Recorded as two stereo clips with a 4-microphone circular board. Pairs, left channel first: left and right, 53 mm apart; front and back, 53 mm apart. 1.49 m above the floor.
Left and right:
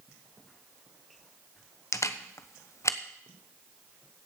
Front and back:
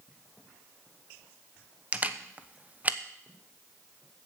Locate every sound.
1.9 s a camera shutter: 120° left, 0.9 m